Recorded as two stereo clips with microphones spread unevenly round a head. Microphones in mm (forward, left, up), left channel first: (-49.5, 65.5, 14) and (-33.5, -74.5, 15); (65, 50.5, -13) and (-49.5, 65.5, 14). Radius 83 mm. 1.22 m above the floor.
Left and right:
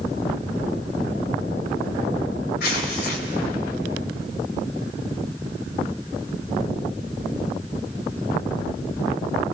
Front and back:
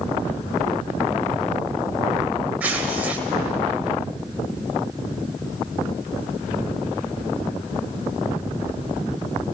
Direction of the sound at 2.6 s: 100° left.